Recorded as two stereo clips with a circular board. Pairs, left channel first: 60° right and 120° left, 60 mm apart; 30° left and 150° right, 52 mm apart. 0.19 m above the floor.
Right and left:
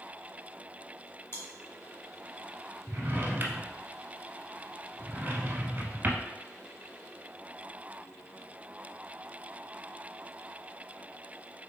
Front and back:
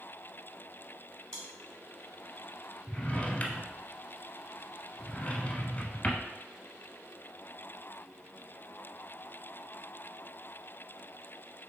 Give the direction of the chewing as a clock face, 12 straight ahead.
1 o'clock.